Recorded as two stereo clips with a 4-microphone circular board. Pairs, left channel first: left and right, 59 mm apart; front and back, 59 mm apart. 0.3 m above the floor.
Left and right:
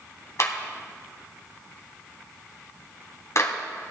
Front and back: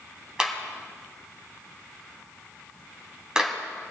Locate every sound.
0.4 s a clap: 110° left, 2 m